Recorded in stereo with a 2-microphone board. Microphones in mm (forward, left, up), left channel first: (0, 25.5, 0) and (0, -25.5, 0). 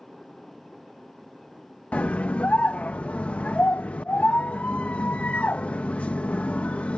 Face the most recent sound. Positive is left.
turn(degrees=30)  # may be behind; listen again after turning